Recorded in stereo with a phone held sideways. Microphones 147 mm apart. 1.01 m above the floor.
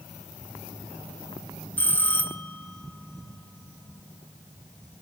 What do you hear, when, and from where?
1.8 s a bell: 10° left (ahead or behind), 1.0 m